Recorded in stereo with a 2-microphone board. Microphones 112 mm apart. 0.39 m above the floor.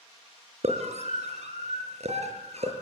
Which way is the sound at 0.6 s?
75° right (ahead or behind).